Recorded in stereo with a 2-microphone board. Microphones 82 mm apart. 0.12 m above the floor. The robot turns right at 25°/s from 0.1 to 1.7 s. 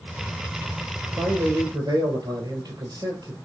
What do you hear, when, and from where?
1.2 s a man speaking: 40° right (ahead or behind), 2.5 m; by 3.4 s 50° right (ahead or behind), 2.5 m